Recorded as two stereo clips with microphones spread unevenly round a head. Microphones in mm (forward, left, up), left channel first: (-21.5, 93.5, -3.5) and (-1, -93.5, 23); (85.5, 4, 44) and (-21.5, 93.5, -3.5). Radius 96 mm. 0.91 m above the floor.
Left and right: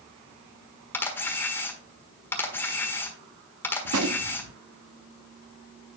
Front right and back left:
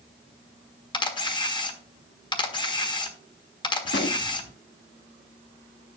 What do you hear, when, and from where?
0.9 s a camera shutter: 15° left, 1.4 m
3.9 s a gunshot: 70° right, 0.8 m